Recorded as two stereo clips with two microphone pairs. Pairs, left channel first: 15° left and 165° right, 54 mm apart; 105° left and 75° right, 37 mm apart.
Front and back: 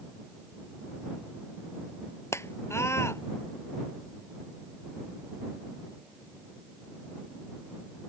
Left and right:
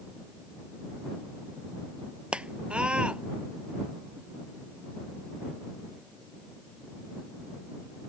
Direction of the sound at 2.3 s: 15° right.